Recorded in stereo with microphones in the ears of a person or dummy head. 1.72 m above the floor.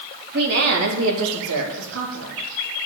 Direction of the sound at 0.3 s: 50° right (ahead or behind).